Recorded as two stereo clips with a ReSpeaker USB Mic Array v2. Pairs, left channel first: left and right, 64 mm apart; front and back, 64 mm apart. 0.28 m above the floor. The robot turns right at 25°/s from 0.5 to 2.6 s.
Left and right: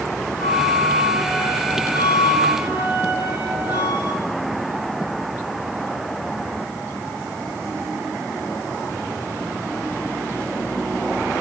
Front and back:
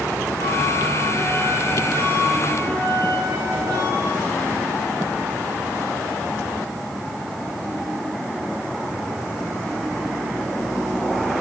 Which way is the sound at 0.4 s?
175° left.